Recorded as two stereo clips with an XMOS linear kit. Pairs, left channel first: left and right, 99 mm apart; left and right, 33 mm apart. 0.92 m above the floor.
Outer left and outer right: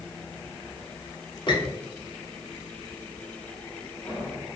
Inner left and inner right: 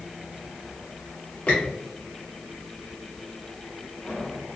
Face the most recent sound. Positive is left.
turn(degrees=50)  # may be behind; listen again after turning